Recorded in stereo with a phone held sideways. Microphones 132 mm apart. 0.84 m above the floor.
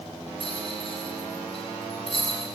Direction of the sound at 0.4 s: 45° left (ahead or behind).